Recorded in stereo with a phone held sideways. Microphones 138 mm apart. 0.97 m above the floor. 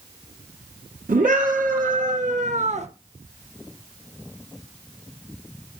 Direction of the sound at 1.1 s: 75° right (ahead or behind).